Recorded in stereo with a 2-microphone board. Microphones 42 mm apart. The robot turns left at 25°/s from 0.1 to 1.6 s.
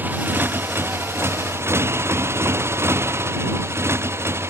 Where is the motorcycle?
45° right; by 4.5 s 85° right.